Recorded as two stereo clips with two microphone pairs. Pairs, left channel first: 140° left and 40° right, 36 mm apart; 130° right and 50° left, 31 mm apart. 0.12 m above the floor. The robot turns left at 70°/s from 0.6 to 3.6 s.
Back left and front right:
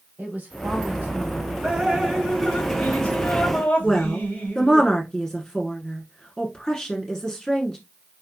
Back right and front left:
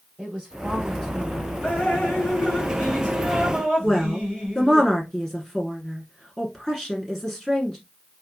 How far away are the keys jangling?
No keys jangling in this recording.